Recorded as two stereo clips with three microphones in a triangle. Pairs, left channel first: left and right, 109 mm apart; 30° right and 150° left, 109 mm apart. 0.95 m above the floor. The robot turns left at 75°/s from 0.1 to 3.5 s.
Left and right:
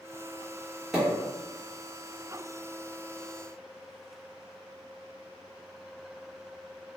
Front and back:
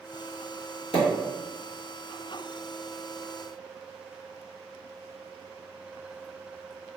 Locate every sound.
0.9 s a pop: 5° right, 1.1 m; by 1.1 s 20° right, 1.1 m